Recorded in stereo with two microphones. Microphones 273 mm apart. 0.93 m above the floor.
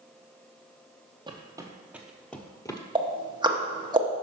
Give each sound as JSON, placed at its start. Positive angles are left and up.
{"t": 1.3, "sound": "footsteps", "side_deg": -15, "distance_m": 1.1}
{"t": 3.0, "sound": "ticking", "side_deg": -15, "distance_m": 0.9}